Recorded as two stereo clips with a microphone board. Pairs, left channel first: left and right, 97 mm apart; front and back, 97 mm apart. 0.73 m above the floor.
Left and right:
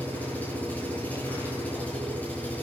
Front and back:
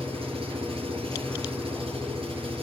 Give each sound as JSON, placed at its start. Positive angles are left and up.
{"t": 0.0, "sound": "an engine running", "azimuth_deg": 165, "distance_m": 8.0}